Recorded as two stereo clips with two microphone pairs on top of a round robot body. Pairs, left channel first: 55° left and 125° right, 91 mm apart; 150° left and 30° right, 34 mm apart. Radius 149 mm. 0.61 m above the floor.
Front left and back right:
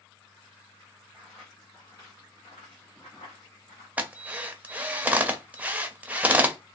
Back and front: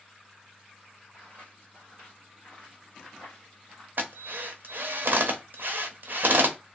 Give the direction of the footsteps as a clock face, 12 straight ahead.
1 o'clock.